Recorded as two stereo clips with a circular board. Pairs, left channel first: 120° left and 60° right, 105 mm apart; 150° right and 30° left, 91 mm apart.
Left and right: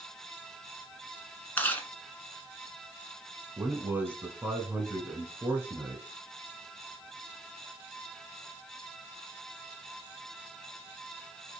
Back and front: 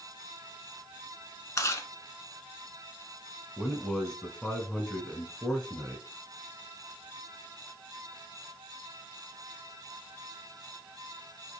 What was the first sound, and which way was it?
Chewing, straight behind.